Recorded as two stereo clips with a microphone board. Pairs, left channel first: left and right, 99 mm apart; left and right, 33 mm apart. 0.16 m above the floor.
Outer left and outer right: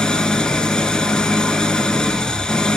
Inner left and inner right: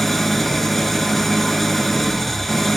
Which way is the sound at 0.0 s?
10° left (ahead or behind).